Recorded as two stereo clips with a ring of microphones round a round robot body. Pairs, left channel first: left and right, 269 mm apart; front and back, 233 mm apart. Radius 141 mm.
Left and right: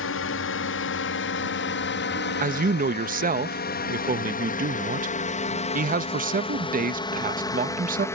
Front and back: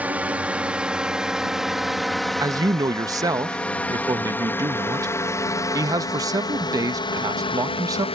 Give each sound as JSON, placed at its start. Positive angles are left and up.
{"t": 0.0, "sound": "a drone", "azimuth_deg": 100}
{"t": 2.4, "sound": "a man speaking", "azimuth_deg": -115}